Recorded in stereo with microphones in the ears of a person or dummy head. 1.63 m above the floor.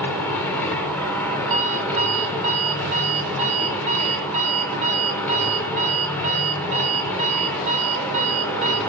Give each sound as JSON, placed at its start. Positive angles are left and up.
{"t": 0.0, "sound": "a machine running", "side_deg": 10, "distance_m": 2.0}
{"t": 1.5, "sound": "an alarm clock", "side_deg": -40, "distance_m": 1.7}